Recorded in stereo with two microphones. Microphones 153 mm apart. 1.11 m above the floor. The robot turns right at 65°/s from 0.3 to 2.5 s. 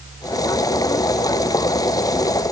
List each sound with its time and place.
Only background noise.